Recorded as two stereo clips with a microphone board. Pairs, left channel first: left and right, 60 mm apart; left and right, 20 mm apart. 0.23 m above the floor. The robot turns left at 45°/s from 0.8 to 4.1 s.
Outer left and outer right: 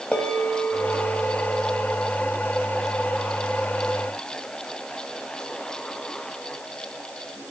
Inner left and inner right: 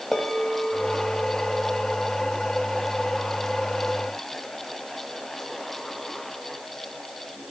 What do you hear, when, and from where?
0.1 s a bell: 20° left (ahead or behind), 1.4 m; by 1.9 s 10° left (ahead or behind), 1.4 m